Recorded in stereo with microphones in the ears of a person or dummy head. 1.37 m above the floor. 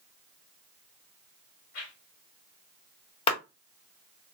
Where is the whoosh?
65° left (ahead or behind), 2 m.